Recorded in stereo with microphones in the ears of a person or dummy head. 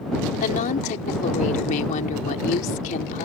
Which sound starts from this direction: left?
A woman speaking, at 0.4 s.